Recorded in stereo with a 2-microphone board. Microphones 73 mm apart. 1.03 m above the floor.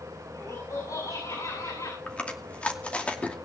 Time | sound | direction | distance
0.3 | laughter | 70° left (ahead or behind) | 7 m
2.1 | chewing | 20° left (ahead or behind) | 2.5 m